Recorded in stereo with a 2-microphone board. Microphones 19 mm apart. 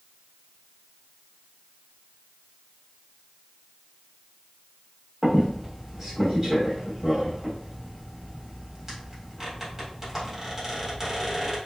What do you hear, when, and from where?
5.2 s a squeak: 15° right (ahead or behind), 1.2 m